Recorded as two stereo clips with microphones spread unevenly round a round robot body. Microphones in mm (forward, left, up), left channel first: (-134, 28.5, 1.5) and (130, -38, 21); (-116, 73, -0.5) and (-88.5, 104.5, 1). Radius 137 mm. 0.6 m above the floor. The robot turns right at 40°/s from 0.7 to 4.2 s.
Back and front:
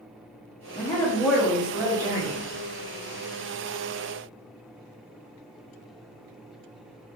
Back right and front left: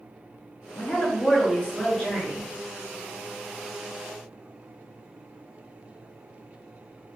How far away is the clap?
I don't hear a clap.